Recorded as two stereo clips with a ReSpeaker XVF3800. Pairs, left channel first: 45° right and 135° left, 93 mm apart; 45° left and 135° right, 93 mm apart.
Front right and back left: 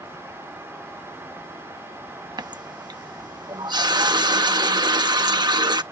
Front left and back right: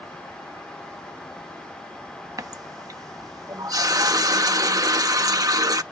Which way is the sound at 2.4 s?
175° left.